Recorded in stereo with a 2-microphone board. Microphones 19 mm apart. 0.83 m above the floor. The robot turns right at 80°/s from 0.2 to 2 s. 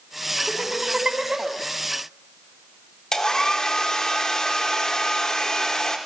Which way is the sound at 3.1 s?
35° left (ahead or behind).